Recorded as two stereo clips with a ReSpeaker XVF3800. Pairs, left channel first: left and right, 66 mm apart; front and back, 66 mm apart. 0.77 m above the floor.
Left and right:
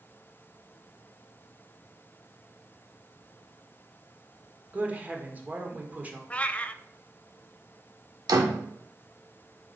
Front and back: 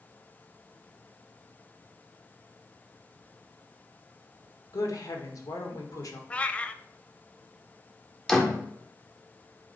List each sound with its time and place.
4.7 s a woman speaking: 25° right, 1.8 m
6.3 s a cat meowing: 45° left, 0.6 m
8.3 s a door slam: 80° right, 1.5 m